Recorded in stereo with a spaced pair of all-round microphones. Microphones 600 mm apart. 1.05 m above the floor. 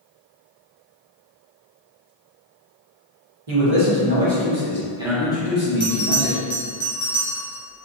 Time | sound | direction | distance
3.5 | a man speaking | 55° right (ahead or behind) | 1.1 m
5.8 | a bell | 50° left (ahead or behind) | 1.1 m